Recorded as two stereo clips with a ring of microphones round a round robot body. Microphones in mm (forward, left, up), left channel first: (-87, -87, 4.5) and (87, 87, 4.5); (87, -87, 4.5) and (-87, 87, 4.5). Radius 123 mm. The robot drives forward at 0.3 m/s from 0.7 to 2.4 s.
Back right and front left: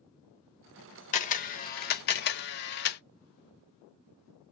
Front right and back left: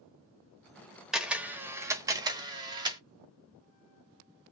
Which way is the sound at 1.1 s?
140° right.